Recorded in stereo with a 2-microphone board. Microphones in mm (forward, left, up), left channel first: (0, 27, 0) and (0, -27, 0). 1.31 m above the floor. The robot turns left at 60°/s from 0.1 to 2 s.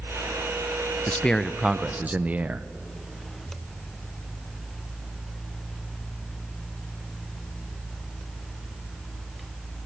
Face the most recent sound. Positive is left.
turn(degrees=-25)